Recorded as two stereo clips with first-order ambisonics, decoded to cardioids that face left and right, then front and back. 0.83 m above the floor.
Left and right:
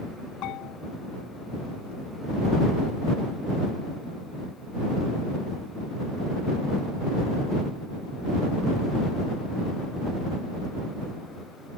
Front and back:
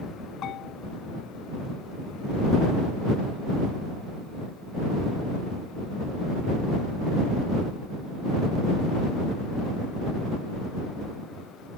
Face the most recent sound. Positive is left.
turn(degrees=50)